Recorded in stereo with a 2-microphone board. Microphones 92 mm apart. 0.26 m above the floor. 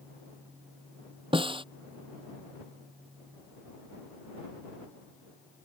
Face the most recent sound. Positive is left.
turn(degrees=-75)  # may be behind; listen again after turning